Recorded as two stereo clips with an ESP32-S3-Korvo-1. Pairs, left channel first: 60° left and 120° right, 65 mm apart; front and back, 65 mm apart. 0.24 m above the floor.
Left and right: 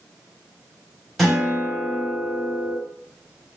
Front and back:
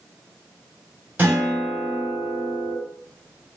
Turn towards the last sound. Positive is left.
turn(degrees=145)